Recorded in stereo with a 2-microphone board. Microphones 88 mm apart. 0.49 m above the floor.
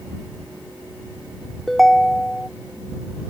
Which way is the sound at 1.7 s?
Centre (ahead or behind).